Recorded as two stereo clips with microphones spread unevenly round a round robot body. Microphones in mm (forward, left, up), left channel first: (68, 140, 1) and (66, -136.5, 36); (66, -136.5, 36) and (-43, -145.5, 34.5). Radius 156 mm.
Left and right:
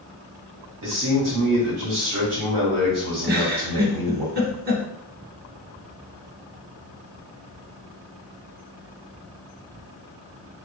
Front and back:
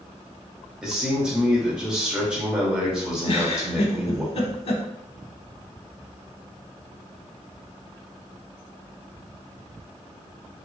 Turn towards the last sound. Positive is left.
turn(degrees=-30)